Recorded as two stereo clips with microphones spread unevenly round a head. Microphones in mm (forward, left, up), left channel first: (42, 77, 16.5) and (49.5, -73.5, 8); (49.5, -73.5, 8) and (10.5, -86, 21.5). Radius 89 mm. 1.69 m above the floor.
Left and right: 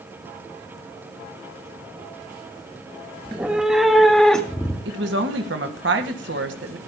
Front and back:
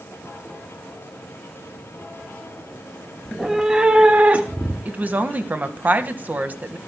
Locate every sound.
3.2 s a cat meowing: 160° right, 1.0 m; by 4.8 s 175° left, 1.7 m
4.8 s a woman speaking: 120° right, 1.8 m